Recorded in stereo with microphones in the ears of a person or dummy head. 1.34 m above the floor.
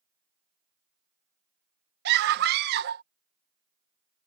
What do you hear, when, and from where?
2.0 s a scream: 55° right (ahead or behind)